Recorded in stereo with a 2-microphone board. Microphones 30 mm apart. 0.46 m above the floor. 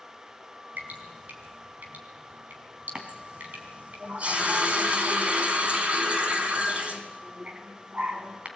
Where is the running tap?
45° right (ahead or behind), 2.5 m.